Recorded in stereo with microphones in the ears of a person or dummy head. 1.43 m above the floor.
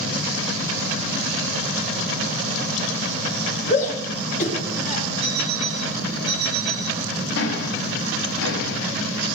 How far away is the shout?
About 3 m.